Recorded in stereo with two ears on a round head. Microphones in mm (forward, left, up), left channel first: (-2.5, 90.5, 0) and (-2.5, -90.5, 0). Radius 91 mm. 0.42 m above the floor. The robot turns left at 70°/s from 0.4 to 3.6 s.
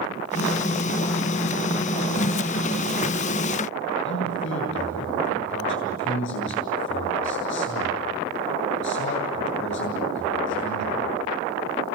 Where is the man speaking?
65° left (ahead or behind), 8 m.